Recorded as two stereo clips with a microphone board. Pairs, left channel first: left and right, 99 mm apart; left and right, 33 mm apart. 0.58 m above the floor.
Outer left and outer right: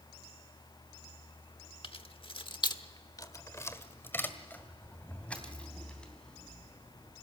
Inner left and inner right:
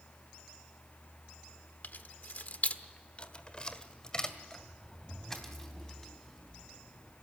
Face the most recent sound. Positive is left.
turn(degrees=5)  # may be behind; listen again after turning